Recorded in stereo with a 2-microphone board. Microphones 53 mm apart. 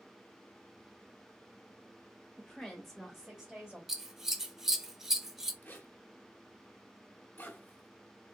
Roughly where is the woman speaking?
Centre.